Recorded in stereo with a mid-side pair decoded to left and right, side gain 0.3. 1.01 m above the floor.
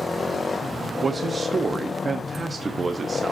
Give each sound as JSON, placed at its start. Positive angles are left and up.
{"t": 1.0, "sound": "a man speaking", "azimuth_deg": -40, "distance_m": 1.2}